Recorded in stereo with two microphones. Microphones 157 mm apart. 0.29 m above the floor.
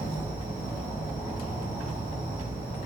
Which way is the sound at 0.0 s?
10° right (ahead or behind).